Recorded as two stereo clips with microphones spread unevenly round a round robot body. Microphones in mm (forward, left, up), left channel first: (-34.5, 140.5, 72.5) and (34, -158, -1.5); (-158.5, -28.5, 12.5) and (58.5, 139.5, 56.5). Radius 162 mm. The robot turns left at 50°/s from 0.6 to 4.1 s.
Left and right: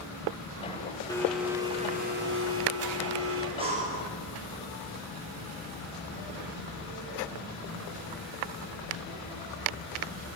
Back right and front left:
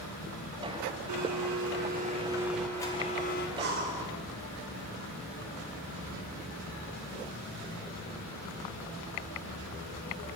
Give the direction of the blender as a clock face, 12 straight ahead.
11 o'clock.